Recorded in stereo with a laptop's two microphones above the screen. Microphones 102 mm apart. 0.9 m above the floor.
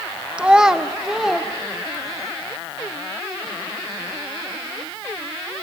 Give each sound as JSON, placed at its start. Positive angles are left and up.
{"t": 0.4, "sound": "a child speaking", "side_deg": -10, "distance_m": 0.7}